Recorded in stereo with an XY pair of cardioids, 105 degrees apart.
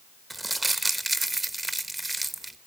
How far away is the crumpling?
About 1.0 m.